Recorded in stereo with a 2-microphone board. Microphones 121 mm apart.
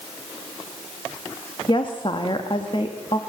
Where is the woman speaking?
45° left (ahead or behind), 1.4 m.